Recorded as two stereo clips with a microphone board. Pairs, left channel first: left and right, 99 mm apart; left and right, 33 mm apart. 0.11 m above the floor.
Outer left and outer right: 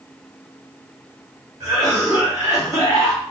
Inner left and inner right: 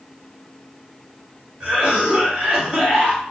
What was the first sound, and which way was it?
A cough, 35° right (ahead or behind).